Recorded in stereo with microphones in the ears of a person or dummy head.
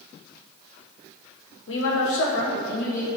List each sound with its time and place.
1.7 s a woman speaking: 75° left (ahead or behind), 0.8 m; by 3.1 s 50° left (ahead or behind), 1.3 m